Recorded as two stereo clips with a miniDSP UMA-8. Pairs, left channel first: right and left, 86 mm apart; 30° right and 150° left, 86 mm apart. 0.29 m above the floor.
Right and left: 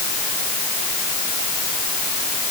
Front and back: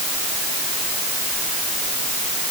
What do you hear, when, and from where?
Only background noise.